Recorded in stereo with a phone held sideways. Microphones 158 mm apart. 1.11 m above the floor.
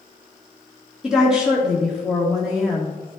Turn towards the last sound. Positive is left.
turn(degrees=-5)  # may be behind; listen again after turning